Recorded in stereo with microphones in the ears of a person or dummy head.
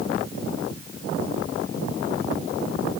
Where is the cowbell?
I don't hear a cowbell.